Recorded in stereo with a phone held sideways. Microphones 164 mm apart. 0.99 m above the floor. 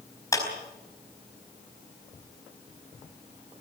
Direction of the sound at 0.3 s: 20° left (ahead or behind).